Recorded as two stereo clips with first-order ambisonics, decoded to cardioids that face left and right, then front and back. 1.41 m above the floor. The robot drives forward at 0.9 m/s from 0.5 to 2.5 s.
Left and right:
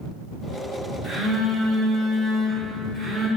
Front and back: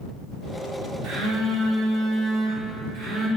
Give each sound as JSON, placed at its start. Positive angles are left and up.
{"t": 1.0, "sound": "a phone buzzing", "azimuth_deg": 170, "distance_m": 3.0}